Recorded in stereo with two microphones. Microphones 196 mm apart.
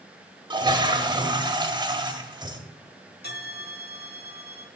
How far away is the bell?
About 0.8 m.